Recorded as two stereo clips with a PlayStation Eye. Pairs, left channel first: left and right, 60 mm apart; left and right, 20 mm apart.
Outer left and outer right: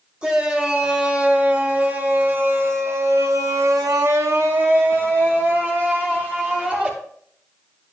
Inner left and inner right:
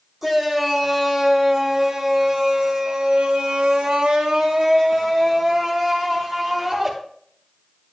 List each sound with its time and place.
0.2 s a shout: 15° right (ahead or behind), 3 m; by 6.9 s 25° right (ahead or behind), 2.5 m